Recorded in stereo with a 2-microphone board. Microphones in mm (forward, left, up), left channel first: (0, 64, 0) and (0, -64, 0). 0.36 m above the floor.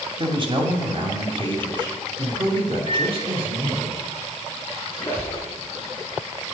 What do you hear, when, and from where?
0.2 s a man speaking: 40° right (ahead or behind), 2.0 m
2.9 s a microwave: 55° right (ahead or behind), 3 m
4.9 s a squeak: 20° left (ahead or behind), 4 m